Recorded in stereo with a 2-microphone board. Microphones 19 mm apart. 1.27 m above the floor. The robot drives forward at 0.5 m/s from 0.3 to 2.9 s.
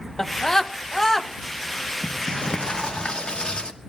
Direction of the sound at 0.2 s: 25° left (ahead or behind).